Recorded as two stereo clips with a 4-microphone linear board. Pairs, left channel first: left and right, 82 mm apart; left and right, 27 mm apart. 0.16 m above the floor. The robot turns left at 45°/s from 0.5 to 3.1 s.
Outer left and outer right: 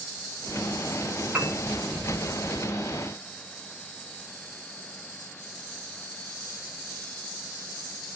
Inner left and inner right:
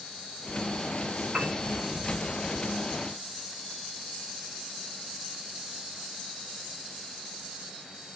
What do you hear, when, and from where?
1.3 s a piano: 15° right (ahead or behind), 1.7 m; by 1.6 s 20° right (ahead or behind), 1.7 m